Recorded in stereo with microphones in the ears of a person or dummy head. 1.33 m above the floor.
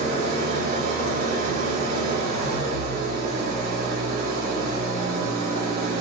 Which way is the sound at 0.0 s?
50° right (ahead or behind).